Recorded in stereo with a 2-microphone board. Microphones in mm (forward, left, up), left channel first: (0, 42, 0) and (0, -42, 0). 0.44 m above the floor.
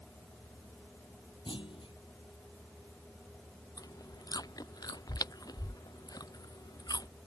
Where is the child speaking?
I don't hear a child speaking.